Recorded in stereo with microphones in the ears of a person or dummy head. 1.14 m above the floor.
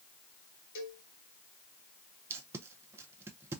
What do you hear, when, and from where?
0.8 s a cowbell: 70° left (ahead or behind), 2 m
2.3 s tape being pulled: 15° right (ahead or behind), 0.5 m